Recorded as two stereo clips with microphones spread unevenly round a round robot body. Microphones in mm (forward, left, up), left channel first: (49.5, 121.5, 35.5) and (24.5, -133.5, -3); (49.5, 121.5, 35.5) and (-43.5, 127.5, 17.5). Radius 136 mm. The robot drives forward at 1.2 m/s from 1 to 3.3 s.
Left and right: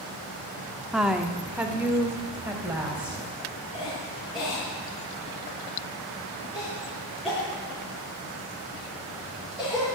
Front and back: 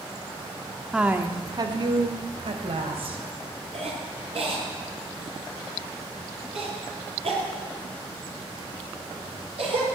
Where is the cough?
175° left, 6 m.